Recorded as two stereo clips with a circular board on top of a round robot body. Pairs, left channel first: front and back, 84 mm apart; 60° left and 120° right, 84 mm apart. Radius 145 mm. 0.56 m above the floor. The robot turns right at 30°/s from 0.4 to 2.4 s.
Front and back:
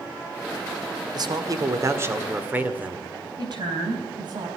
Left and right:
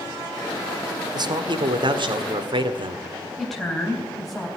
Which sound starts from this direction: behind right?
A man speaking, at 1.1 s.